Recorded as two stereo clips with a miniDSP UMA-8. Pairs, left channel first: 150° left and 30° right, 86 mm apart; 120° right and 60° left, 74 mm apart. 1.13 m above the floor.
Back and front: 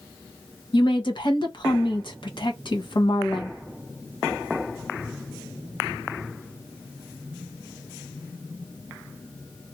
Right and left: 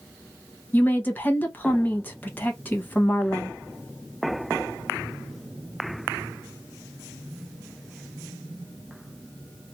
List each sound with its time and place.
0.7 s a woman speaking: 175° left, 1.0 m